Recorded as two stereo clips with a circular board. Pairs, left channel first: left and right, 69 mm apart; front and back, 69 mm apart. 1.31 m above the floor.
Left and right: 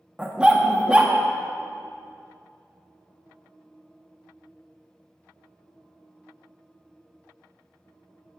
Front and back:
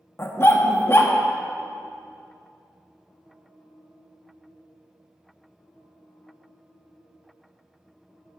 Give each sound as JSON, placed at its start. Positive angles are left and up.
{"t": 0.2, "sound": "a dog barking", "azimuth_deg": -25, "distance_m": 0.8}